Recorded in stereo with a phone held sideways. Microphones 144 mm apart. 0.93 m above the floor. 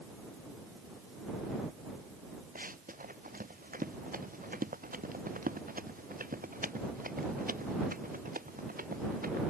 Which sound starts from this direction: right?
Running footsteps, at 2.5 s.